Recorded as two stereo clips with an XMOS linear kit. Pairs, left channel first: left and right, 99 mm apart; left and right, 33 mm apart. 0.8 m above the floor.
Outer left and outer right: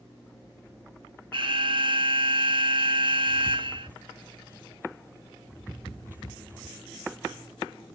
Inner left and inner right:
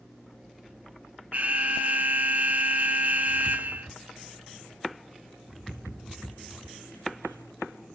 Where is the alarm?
55° right (ahead or behind), 1.1 m.